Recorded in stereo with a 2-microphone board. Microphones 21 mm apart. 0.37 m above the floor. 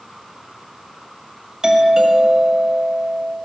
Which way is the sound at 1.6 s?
30° right (ahead or behind).